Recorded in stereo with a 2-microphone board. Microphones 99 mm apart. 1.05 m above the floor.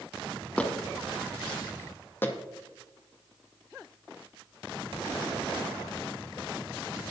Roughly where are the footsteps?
Centre.